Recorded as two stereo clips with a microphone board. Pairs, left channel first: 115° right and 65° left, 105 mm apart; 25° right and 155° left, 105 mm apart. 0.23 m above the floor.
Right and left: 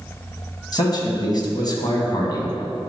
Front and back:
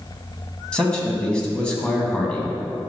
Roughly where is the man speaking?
Right.